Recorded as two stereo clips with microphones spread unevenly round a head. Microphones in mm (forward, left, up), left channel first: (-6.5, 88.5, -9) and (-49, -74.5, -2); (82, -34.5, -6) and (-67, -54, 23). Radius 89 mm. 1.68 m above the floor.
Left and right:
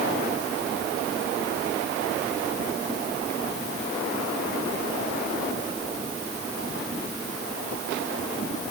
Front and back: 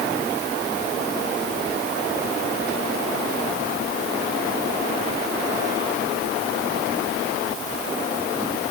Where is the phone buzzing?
I don't hear a phone buzzing.